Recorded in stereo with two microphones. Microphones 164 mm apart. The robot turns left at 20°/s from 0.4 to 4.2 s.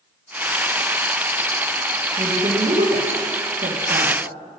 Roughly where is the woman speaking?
Right.